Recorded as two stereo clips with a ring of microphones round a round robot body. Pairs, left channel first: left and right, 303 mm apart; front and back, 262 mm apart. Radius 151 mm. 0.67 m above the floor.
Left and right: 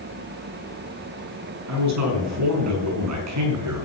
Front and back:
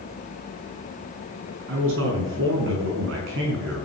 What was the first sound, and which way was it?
A man speaking, 125° right.